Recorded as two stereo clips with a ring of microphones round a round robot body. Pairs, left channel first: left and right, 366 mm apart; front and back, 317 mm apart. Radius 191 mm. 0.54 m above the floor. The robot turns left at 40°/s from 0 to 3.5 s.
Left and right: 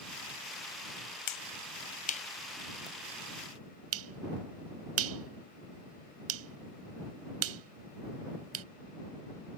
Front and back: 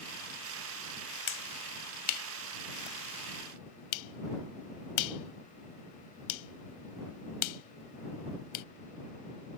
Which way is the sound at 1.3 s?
55° left.